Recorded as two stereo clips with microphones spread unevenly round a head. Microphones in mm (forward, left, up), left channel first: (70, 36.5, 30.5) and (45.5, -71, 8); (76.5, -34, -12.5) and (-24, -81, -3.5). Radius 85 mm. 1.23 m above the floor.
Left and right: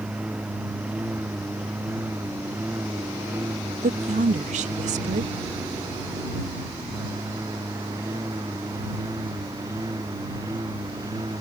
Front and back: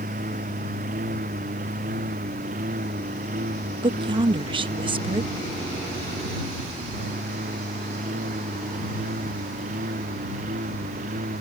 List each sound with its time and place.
0.0 s a lawn mower: 170° left; by 11.4 s 175° right
3.8 s a woman speaking: 110° right